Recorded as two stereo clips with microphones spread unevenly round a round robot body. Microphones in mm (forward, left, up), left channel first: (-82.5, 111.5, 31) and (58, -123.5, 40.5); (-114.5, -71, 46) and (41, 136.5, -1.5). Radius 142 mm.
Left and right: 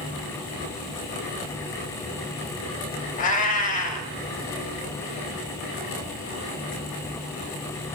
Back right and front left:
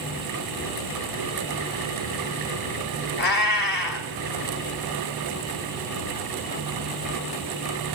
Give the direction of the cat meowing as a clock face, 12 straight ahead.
6 o'clock.